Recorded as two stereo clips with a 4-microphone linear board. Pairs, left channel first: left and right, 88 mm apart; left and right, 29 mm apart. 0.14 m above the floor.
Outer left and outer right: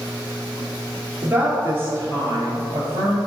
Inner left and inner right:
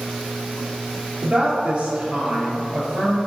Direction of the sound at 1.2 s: 20° right (ahead or behind).